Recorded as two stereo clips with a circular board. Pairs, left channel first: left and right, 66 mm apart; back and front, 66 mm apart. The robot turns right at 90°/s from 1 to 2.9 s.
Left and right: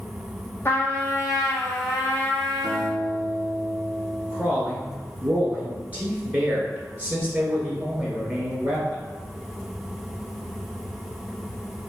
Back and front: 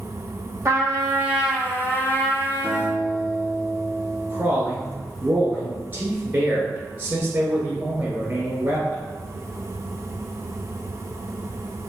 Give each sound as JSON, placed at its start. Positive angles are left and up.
{"t": 0.7, "sound": "a trumpet", "azimuth_deg": 40, "distance_m": 1.3}
{"t": 2.6, "sound": "a guitar", "azimuth_deg": -75, "distance_m": 2.0}
{"t": 4.3, "sound": "a man speaking", "azimuth_deg": -40, "distance_m": 1.8}